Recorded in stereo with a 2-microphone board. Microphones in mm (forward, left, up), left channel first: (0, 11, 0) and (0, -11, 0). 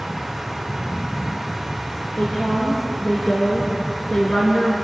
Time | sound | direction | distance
2.2 | a woman speaking | 70° left (ahead or behind) | 5 m